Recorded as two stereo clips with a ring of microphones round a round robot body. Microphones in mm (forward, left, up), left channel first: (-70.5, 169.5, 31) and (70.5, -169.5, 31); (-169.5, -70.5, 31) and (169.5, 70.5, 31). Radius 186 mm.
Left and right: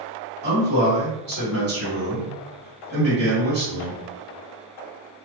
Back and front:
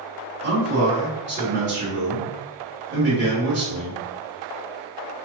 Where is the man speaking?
30° right, 1.9 m.